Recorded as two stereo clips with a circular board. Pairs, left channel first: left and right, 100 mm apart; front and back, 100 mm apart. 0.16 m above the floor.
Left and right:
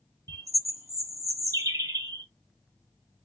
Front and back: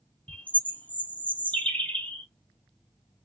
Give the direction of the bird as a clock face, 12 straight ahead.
2 o'clock.